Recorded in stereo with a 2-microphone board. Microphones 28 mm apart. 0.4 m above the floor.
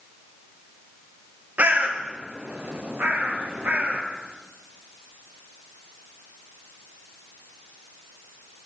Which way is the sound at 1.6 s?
65° right (ahead or behind).